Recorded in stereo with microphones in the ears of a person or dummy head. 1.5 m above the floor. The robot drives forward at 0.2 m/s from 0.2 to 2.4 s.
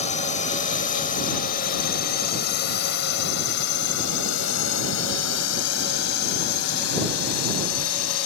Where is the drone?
35° left (ahead or behind); by 8.3 s 85° left.